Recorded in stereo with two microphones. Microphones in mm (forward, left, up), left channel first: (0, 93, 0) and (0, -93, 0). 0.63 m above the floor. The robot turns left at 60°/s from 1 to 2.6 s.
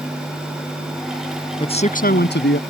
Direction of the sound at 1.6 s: 155° left.